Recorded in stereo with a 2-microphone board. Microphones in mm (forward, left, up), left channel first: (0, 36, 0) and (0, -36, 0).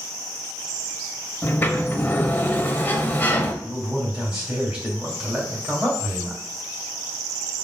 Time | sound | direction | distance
1.4 | a sliding door | 30° left (ahead or behind) | 0.6 m
3.6 | a man speaking | 15° right (ahead or behind) | 1.9 m